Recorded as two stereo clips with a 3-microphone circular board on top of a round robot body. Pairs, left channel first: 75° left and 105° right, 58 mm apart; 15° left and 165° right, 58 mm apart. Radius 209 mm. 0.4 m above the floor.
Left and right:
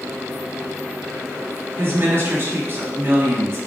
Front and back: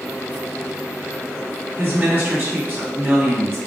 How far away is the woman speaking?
About 1.7 m.